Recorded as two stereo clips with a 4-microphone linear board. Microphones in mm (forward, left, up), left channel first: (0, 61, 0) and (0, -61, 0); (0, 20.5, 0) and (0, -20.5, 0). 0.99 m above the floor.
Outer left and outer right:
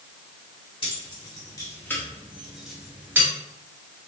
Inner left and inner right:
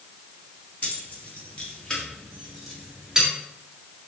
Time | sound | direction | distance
0.8 | keys jangling | 40° left (ahead or behind) | 1.3 m